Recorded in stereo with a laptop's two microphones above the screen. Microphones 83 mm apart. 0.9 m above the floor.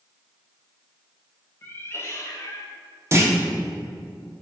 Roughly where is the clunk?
Right.